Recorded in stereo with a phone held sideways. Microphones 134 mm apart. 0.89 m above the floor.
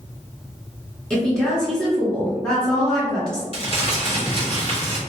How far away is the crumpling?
About 1.2 m.